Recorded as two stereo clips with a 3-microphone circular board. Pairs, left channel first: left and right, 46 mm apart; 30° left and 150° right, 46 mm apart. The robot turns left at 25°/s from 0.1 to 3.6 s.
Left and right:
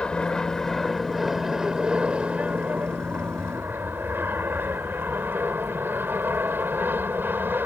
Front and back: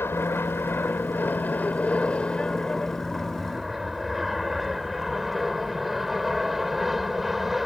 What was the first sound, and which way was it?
An aircraft, 25° left.